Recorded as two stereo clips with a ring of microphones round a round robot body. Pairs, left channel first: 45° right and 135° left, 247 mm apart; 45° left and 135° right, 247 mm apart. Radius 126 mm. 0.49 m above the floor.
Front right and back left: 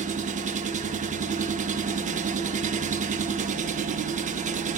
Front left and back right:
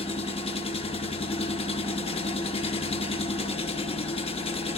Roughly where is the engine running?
Left.